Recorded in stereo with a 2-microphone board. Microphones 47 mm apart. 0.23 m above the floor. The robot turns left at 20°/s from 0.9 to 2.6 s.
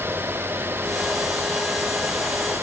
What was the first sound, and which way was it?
Only background noise.